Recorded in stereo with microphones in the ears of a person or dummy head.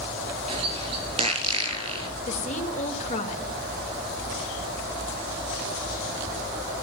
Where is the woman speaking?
40° left (ahead or behind), 2.5 m.